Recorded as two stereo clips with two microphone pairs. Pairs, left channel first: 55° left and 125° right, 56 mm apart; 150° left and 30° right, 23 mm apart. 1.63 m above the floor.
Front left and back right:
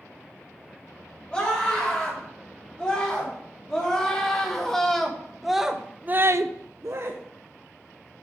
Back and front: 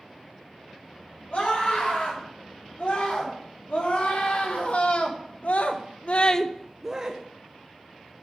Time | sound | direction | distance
1.3 | a scream | 125° left | 7 m